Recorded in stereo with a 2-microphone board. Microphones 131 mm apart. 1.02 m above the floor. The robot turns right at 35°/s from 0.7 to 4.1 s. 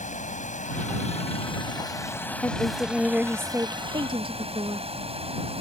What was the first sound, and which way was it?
Running water, 110° left.